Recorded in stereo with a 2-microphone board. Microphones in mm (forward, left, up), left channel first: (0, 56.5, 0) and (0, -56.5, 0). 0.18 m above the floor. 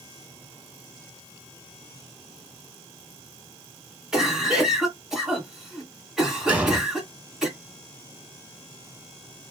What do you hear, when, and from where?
4.1 s a cough: 5° right (ahead or behind), 2.5 m
6.5 s an explosion: 10° right (ahead or behind), 1.0 m